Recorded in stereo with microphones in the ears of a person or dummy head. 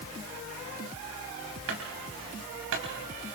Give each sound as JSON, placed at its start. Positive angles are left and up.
{"t": 1.7, "sound": "a clunk", "side_deg": -80, "distance_m": 5.5}